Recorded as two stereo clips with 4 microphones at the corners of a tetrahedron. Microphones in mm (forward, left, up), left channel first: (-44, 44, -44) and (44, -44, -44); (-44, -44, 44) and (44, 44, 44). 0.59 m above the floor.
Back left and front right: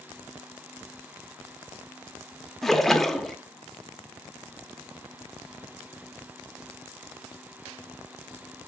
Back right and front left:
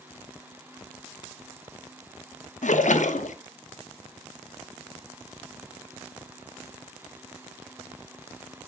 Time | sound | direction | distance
2.6 | a splash | 135° right | 0.5 m